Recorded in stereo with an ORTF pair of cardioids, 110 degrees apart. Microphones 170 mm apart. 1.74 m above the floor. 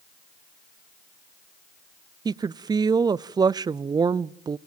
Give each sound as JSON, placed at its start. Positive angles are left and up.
{"t": 2.2, "sound": "a woman speaking", "azimuth_deg": -25, "distance_m": 0.5}